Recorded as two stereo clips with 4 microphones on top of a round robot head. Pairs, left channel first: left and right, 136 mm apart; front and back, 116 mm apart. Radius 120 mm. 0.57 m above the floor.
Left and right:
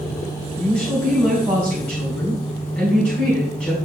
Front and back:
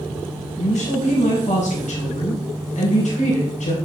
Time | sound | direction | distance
0.6 | a woman speaking | 5° left | 4 m